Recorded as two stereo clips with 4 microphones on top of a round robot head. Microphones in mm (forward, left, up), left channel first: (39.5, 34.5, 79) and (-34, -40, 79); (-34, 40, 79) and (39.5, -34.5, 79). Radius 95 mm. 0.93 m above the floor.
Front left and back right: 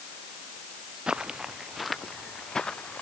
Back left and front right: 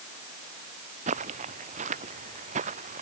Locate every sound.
1.1 s footsteps: 55° right; by 3.0 s 35° right